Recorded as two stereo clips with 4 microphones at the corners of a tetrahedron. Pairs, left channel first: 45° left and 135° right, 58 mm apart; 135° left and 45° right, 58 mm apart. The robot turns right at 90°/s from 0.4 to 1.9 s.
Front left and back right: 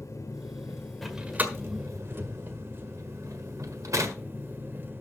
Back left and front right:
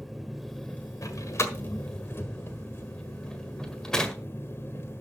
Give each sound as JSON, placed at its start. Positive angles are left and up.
{"t": 0.0, "sound": "an engine running", "azimuth_deg": 45, "distance_m": 1.5}
{"t": 1.0, "sound": "a door slam", "azimuth_deg": 130, "distance_m": 1.6}